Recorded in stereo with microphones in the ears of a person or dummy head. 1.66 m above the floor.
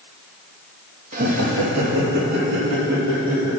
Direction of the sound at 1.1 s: 50° right (ahead or behind).